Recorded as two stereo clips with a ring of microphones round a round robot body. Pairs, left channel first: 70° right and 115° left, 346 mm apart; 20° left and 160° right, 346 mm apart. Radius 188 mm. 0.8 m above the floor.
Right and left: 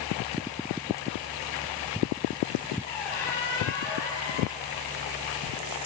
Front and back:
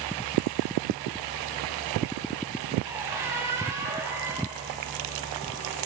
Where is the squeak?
75° right, 2.5 m.